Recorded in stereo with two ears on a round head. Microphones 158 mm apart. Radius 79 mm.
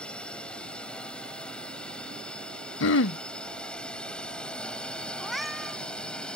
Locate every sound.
0.0 s a drone: 5° left (ahead or behind)
2.8 s throat clearing: 75° left (ahead or behind)
5.2 s a cat meowing: centre (ahead or behind)